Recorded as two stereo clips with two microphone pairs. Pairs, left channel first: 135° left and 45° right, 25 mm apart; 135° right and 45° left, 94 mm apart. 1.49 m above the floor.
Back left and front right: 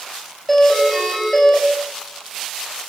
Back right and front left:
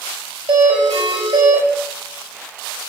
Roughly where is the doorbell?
Ahead left.